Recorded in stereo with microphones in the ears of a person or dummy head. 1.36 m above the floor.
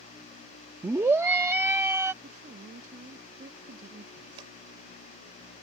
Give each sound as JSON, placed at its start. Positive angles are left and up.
{"t": 0.8, "sound": "a scream", "side_deg": -10}
{"t": 2.2, "sound": "a woman speaking", "side_deg": -50}
{"t": 4.4, "sound": "scissors", "side_deg": -30}